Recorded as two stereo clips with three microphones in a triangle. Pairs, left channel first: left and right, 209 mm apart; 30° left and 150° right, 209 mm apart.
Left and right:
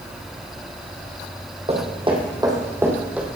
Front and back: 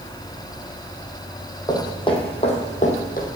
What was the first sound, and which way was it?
Footsteps, 40° right.